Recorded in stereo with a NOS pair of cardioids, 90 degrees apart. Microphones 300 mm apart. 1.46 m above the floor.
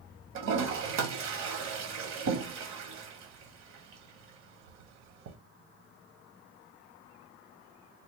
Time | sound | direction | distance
0.3 | a toilet flushing | 65° right | 1.1 m